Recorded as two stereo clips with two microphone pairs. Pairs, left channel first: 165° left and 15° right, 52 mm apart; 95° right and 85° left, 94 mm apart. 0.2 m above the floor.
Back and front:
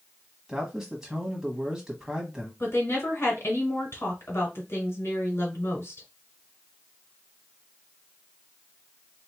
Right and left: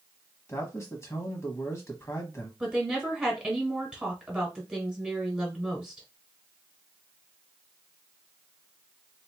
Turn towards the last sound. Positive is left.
turn(degrees=160)